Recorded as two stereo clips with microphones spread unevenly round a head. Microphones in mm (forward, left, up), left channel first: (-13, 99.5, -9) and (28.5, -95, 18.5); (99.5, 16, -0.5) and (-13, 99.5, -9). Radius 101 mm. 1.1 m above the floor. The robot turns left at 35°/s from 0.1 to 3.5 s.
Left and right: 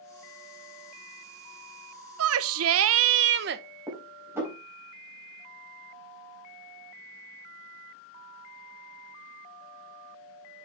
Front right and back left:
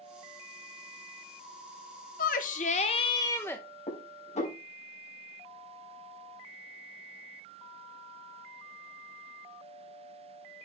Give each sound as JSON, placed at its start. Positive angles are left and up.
{"t": 2.2, "sound": "a shout", "azimuth_deg": -70, "distance_m": 0.8}
{"t": 3.9, "sound": "dishes clattering", "azimuth_deg": 0, "distance_m": 3.5}